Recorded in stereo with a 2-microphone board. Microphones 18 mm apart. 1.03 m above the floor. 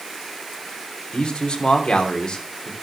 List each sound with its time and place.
1.1 s a man speaking: 50° left (ahead or behind), 3 m